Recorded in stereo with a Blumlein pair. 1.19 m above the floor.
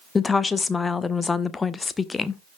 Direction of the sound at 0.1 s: 15° left.